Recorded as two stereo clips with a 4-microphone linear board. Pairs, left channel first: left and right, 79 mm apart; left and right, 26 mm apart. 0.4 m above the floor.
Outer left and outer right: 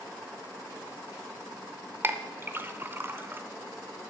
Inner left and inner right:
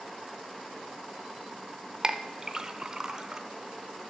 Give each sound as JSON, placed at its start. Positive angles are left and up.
{"t": 2.0, "sound": "a clink", "side_deg": -30, "distance_m": 0.5}